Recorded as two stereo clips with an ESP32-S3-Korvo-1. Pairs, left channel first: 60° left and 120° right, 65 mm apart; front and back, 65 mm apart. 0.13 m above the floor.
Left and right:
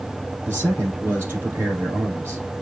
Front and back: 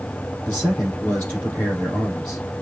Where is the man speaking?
60° right, 3.5 m.